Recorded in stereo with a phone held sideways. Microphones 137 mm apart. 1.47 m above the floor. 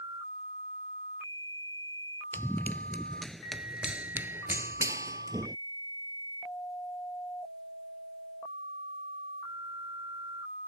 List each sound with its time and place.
2.3 s running footsteps: 15° left (ahead or behind); by 5.6 s 30° right (ahead or behind)